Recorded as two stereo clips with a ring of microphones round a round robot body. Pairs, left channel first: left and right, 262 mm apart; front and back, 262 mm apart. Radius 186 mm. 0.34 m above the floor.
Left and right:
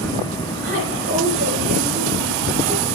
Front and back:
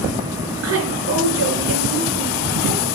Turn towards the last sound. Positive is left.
turn(degrees=-150)